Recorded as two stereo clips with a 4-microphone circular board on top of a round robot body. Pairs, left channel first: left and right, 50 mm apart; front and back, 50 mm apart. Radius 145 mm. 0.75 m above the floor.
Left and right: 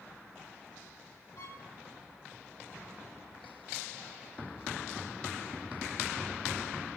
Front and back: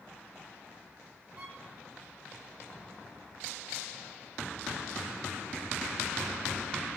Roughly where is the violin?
Behind left.